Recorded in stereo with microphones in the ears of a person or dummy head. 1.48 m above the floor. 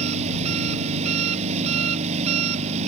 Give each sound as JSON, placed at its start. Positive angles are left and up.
{"t": 0.0, "sound": "an engine running", "side_deg": -40}